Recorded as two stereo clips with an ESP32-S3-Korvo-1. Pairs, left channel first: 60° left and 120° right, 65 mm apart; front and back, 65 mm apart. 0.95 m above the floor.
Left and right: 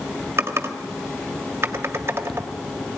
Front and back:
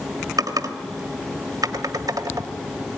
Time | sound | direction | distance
0.4 | typing on a keyboard | 170° right | 1.6 m